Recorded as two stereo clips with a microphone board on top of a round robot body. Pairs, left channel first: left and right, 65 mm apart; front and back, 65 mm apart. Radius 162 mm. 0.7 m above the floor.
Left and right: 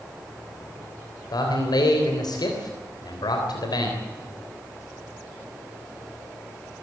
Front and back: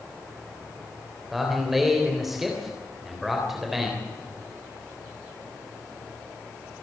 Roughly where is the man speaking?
Left.